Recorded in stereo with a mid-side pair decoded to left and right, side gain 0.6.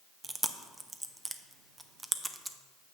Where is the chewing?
15° right, 0.5 m.